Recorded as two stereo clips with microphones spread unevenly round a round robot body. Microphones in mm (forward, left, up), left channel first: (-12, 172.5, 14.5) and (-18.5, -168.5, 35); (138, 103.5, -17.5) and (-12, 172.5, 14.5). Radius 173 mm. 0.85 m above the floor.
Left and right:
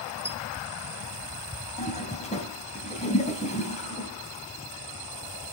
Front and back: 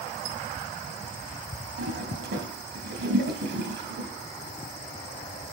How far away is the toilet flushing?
About 3.5 m.